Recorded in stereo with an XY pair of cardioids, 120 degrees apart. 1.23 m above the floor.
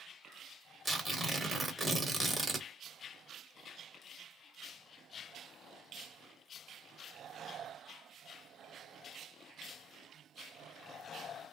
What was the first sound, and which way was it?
Tearing paper, 5° right.